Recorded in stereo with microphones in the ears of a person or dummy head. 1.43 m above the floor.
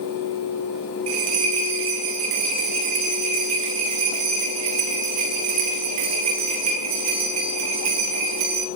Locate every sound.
1.1 s a bell: 35° right (ahead or behind), 1.2 m